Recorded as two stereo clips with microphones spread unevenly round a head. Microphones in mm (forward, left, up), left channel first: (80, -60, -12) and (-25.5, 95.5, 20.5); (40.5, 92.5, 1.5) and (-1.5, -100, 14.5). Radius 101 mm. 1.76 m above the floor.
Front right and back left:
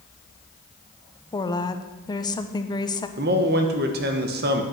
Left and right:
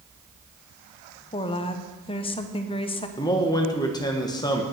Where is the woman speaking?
15° left, 0.9 m.